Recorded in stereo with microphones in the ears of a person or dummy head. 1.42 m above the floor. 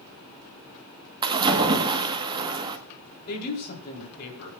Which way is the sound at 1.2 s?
25° right (ahead or behind).